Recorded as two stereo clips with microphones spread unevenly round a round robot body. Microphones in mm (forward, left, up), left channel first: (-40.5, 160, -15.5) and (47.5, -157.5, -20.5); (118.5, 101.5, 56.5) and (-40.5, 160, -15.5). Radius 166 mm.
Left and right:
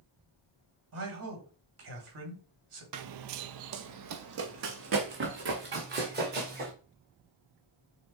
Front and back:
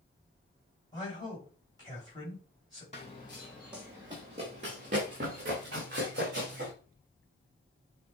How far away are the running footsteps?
About 0.5 m.